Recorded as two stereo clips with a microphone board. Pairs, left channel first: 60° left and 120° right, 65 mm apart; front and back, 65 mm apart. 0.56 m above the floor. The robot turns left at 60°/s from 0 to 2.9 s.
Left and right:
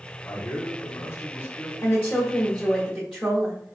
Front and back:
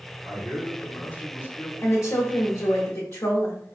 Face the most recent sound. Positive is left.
turn(degrees=-35)